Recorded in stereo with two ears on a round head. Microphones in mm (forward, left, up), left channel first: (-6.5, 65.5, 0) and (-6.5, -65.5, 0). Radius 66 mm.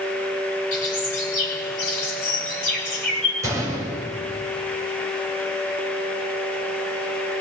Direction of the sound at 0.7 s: 60° left (ahead or behind).